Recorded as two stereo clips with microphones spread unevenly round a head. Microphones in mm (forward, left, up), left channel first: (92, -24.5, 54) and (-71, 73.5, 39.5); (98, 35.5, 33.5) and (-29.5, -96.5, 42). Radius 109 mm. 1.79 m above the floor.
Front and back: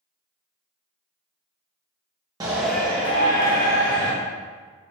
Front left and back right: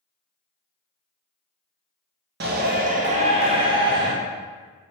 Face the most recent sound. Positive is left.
turn(degrees=-70)